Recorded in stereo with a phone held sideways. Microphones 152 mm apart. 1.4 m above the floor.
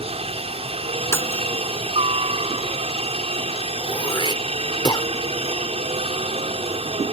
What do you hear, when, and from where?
0.0 s a helicopter: 40° right (ahead or behind)
1.1 s breaking glass: 20° left (ahead or behind)
3.8 s throat clearing: 30° left (ahead or behind)